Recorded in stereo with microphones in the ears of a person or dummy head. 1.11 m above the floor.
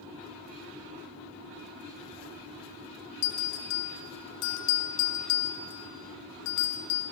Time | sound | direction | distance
3.2 | a bell | 60° left (ahead or behind) | 1.0 m